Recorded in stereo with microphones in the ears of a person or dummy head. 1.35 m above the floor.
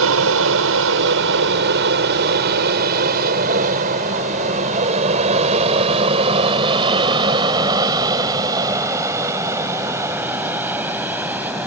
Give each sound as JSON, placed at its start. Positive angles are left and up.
{"t": 0.0, "sound": "an aircraft", "side_deg": -70}